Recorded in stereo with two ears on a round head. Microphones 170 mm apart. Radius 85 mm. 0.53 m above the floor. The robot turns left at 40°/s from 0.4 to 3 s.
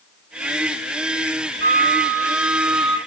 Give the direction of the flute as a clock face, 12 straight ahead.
2 o'clock.